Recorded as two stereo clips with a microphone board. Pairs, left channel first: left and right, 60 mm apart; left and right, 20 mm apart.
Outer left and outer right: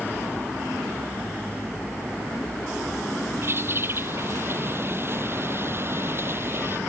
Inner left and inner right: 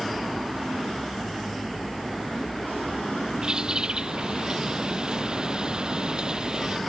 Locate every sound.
3.4 s a bird: 40° right (ahead or behind)